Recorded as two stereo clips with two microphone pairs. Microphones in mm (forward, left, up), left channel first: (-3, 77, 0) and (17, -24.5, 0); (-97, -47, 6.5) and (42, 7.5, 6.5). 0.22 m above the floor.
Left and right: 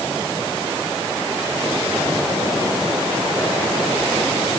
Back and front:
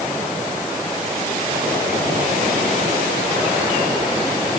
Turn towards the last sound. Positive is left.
No sound to turn to.